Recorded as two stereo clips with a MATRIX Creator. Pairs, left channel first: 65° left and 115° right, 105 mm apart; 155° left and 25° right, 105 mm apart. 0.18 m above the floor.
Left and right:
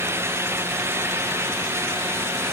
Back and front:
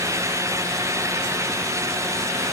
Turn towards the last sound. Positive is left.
No sound to turn to.